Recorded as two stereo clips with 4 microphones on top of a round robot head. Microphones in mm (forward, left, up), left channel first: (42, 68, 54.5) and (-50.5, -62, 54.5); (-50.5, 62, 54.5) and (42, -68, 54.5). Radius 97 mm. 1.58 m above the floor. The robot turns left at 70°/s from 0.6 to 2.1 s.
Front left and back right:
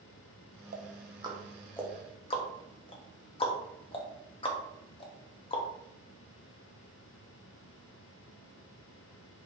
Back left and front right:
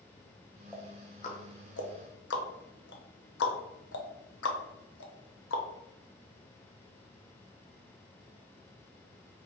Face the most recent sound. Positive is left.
turn(degrees=110)